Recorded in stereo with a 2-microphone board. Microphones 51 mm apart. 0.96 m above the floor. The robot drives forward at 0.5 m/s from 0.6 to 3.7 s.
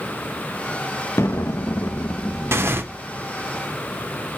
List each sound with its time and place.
1.2 s an explosion: 65° left (ahead or behind), 0.6 m; by 3.5 s 30° left (ahead or behind), 1.2 m
2.5 s tearing paper: 55° right (ahead or behind), 0.8 m; by 2.8 s 45° right (ahead or behind), 0.9 m